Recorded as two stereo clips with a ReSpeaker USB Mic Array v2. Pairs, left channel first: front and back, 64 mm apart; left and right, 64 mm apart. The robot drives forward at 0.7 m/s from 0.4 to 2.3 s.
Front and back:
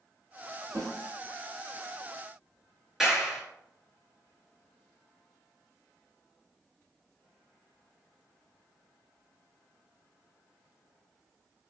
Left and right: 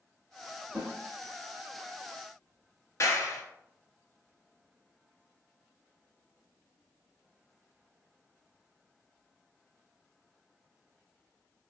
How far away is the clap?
About 1.9 m.